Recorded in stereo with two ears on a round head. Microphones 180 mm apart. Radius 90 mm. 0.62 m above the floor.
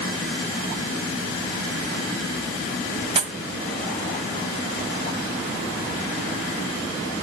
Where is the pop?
25° right (ahead or behind), 1.0 m.